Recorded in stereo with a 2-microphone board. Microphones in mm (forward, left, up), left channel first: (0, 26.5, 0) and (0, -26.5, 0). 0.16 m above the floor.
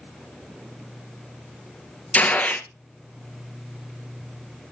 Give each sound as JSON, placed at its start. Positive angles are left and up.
{"t": 2.1, "sound": "a gunshot", "side_deg": 30, "distance_m": 0.8}